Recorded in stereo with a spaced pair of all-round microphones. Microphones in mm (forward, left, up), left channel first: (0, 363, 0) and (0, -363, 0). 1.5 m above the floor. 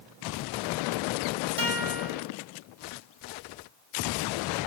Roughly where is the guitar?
Left.